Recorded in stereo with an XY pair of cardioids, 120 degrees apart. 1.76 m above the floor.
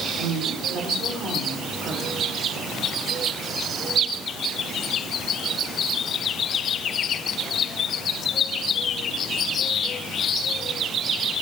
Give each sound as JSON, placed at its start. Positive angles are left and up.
{"t": 0.2, "sound": "a woman speaking", "azimuth_deg": -55, "distance_m": 5.5}